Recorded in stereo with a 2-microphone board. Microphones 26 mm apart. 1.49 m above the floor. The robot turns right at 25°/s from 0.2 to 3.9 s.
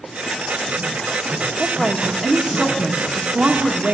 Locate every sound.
1.6 s a woman speaking: 160° right, 1.6 m; by 4.0 s 105° right, 1.6 m